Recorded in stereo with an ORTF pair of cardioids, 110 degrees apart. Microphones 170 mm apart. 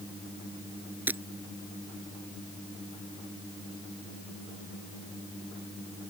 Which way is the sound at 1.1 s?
10° right.